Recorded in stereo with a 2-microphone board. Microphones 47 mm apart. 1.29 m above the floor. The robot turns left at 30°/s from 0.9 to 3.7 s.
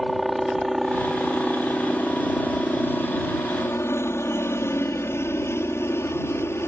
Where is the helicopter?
Straight behind; by 6.7 s 95° left.